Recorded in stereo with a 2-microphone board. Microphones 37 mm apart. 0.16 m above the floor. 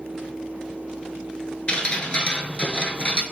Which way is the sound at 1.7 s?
30° left (ahead or behind).